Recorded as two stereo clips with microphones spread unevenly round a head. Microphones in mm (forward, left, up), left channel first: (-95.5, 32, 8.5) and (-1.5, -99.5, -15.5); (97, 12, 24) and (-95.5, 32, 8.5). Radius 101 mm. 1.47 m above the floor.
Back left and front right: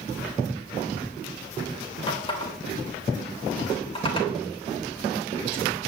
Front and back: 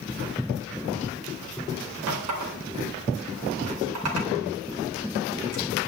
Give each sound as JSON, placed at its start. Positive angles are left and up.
{"t": 2.1, "sound": "a running tap", "azimuth_deg": 180, "distance_m": 4.0}